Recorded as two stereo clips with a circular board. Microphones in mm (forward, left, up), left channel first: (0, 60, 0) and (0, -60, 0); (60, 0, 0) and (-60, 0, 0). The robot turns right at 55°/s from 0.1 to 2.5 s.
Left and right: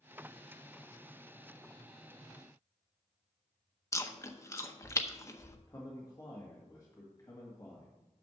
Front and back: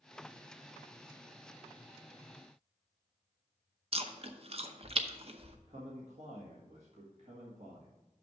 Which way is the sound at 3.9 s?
155° left.